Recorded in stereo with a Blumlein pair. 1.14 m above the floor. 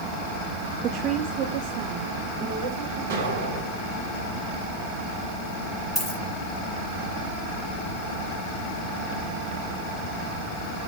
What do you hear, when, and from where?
0.8 s a woman speaking: 25° right, 0.5 m; by 3.0 s 45° right, 3.5 m
3.1 s an explosion: 60° right, 3 m
6.0 s a dropped coin: 15° left, 5.5 m